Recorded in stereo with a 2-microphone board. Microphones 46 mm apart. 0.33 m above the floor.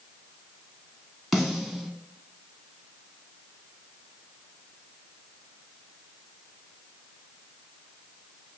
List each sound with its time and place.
1.3 s a snare drum: 5° right (ahead or behind), 0.9 m